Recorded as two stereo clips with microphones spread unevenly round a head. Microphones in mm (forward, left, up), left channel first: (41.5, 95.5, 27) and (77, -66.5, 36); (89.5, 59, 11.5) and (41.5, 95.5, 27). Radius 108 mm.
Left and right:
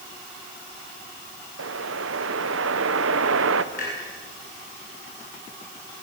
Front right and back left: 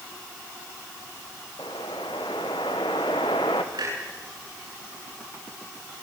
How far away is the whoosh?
About 1.2 m.